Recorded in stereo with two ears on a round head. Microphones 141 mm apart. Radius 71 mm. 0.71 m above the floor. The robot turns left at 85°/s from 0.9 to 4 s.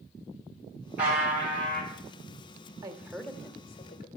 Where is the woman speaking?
150° right, 1.1 m; by 4.1 s 110° left, 1.1 m.